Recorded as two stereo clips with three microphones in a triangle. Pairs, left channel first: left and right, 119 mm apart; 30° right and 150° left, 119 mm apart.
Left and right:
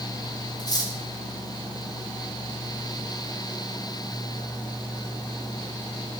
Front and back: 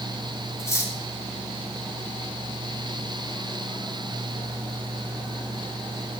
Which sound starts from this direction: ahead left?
Cutlery clinking, at 0.6 s.